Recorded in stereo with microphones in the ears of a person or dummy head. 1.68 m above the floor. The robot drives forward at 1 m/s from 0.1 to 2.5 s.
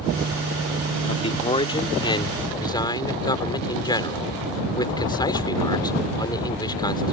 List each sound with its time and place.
1.1 s a man speaking: 35° left (ahead or behind); by 7.1 s 25° left (ahead or behind)